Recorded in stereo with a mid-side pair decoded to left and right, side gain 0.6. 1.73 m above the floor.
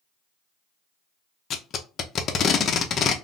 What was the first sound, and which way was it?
Tape being pulled, 45° left.